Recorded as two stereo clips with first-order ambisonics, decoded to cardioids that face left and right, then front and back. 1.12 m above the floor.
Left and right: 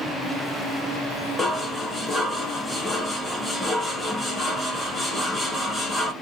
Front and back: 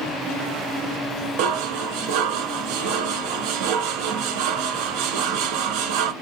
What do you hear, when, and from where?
1.4 s dishes clattering: straight behind, 0.9 m